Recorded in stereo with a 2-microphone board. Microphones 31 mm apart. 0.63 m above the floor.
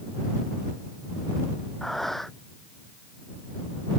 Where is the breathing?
10° left (ahead or behind).